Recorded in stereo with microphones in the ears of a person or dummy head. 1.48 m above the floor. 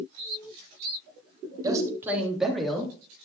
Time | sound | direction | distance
1.6 | a man speaking | 20° right (ahead or behind) | 3 m